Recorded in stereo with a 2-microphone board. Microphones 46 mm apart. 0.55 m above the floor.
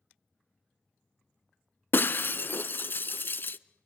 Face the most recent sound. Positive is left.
turn(degrees=50)  # may be behind; listen again after turning